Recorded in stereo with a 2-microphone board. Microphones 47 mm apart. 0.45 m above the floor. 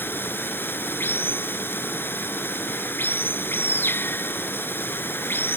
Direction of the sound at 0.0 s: 50° left (ahead or behind).